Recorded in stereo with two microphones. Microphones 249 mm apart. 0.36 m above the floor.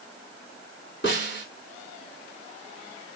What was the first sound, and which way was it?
A snare drum, 45° left (ahead or behind).